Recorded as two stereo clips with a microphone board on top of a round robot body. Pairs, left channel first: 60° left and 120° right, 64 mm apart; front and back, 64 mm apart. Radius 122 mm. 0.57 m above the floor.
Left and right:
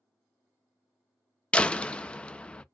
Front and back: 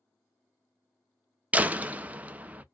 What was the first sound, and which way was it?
A door slam, 125° left.